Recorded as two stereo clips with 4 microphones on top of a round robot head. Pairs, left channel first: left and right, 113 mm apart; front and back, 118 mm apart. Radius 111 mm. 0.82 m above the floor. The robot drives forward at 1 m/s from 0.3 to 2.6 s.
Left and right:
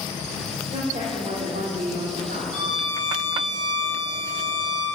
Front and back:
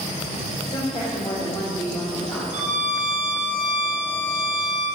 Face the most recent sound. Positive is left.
turn(degrees=-175)